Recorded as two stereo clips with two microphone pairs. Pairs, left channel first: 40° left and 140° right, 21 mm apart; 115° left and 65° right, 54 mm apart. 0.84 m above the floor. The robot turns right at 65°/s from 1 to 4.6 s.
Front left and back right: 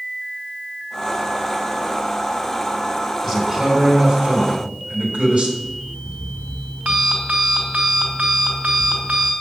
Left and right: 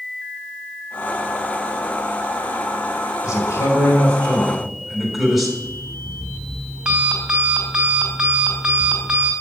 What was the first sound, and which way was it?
A man speaking, 120° left.